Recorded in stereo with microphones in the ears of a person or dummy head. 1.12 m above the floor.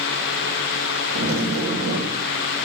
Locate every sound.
1.1 s a zipper: 80° right, 2.5 m